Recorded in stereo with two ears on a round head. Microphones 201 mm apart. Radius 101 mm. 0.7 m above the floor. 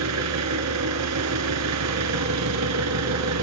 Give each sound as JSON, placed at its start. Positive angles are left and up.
{"t": 0.0, "sound": "an engine running", "side_deg": -80, "distance_m": 2.5}